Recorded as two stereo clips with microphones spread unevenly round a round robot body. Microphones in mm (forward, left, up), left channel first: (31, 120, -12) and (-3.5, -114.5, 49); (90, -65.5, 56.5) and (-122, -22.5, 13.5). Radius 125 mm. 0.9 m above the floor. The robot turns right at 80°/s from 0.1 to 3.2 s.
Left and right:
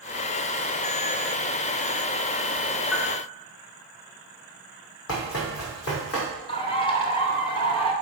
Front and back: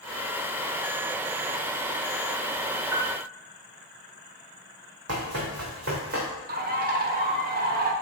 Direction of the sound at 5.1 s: 120° left.